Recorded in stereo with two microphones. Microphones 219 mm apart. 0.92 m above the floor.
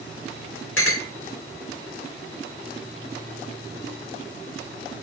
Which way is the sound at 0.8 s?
65° left (ahead or behind).